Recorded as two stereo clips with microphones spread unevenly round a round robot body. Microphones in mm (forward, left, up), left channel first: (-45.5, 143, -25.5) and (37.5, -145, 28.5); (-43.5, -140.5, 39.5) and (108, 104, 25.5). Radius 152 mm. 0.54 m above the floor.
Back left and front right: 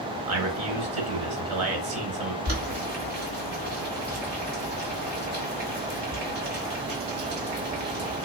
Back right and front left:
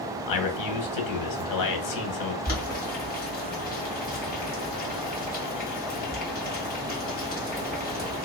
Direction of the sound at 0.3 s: 120° right.